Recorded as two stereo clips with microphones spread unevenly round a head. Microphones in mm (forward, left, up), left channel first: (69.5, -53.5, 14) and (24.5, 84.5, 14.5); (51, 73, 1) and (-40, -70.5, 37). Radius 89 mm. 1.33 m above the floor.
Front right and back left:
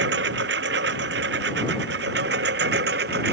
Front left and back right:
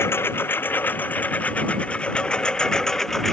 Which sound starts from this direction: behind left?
A lawn mower, at 0.0 s.